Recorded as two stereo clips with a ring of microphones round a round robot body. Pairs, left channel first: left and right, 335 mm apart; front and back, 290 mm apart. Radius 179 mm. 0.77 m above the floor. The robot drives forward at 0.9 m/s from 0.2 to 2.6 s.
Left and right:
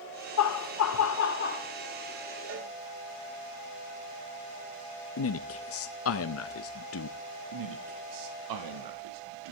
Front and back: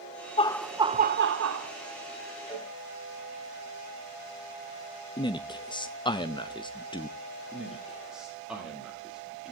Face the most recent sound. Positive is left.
turn(degrees=-90)